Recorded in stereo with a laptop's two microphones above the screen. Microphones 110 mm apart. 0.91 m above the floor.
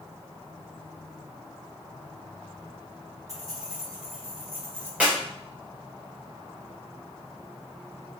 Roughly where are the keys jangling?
Right.